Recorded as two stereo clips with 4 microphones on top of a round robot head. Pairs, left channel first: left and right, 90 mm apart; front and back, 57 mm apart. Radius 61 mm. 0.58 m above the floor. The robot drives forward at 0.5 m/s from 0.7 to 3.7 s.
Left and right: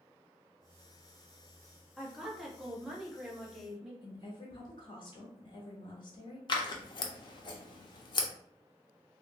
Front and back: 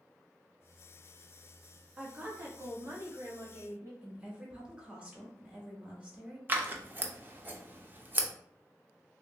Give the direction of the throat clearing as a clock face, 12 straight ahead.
I don't hear throat clearing.